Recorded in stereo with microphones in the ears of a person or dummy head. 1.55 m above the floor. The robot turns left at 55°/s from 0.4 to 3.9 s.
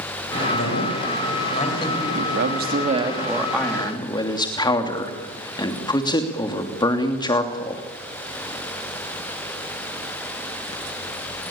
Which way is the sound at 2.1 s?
110° right.